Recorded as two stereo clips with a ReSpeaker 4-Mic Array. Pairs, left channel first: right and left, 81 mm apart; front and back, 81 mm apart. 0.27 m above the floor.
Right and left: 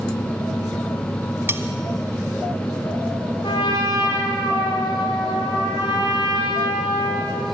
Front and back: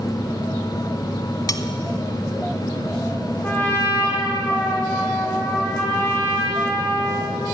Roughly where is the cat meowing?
I don't hear a cat meowing.